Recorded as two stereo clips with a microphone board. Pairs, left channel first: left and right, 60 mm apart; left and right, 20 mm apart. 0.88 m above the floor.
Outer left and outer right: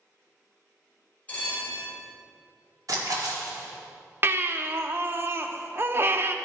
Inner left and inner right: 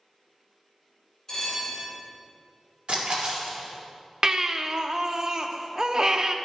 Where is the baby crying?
40° right (ahead or behind), 0.5 m.